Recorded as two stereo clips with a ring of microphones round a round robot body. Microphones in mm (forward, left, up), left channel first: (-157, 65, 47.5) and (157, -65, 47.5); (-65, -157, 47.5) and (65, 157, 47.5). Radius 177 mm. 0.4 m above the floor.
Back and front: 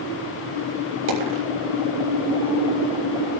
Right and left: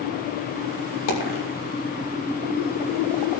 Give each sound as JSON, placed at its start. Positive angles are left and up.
{"t": 1.1, "sound": "a dropped coin", "azimuth_deg": -75, "distance_m": 7.0}